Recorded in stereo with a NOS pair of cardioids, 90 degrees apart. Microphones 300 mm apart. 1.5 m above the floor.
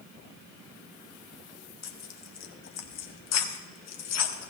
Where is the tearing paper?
60° left, 1.4 m.